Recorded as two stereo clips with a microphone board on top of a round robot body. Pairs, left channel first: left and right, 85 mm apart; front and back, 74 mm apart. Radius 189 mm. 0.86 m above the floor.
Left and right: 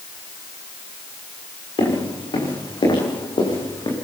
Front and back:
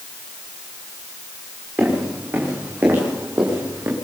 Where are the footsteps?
115° left, 10 m; by 4.0 s 125° left, 7 m.